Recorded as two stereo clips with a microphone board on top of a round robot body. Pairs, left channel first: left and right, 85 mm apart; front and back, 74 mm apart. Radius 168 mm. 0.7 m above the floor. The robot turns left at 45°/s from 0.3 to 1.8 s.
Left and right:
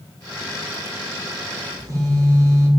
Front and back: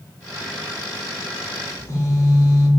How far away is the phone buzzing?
About 2.5 m.